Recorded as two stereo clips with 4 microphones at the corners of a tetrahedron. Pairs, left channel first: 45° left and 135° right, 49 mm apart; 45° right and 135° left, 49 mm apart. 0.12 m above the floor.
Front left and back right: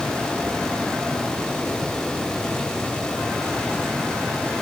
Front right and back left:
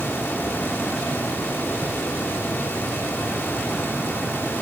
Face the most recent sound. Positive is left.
No sound to turn to.